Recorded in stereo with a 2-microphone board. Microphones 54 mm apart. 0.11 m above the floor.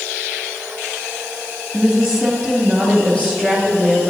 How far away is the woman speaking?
About 2.5 m.